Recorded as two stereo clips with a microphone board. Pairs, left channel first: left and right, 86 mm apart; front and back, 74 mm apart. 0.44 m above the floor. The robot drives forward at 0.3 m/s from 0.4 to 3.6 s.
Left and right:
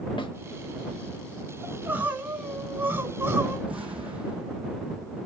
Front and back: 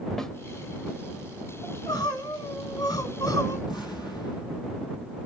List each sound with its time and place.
0.2 s a snare drum: 85° left, 0.6 m
1.6 s crying: 20° right, 1.7 m; by 3.6 s 30° right, 1.1 m
3.7 s an explosion: 10° right, 3.5 m